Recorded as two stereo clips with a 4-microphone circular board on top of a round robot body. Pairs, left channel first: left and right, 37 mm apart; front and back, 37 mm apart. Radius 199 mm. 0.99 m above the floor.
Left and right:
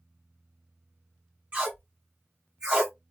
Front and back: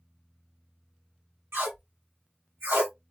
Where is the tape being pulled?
155° right, 1.2 m.